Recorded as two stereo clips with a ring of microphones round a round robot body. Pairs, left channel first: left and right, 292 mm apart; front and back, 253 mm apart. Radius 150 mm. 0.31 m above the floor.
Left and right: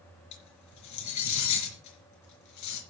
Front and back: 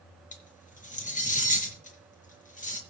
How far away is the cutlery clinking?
About 4 m.